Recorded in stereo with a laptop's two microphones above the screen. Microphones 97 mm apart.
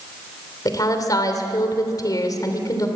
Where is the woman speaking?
40° left (ahead or behind), 3 m.